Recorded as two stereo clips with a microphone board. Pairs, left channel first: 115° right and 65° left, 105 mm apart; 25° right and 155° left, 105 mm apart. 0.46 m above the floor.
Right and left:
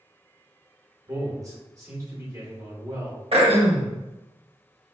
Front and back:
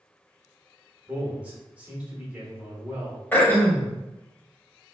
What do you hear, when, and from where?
1.1 s a man speaking: 90° left, 1.1 m
3.3 s throat clearing: 50° left, 0.7 m